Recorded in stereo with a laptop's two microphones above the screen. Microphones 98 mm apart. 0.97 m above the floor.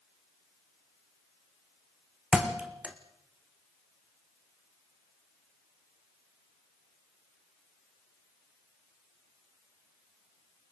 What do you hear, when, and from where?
2.3 s a thud: 10° right (ahead or behind), 3 m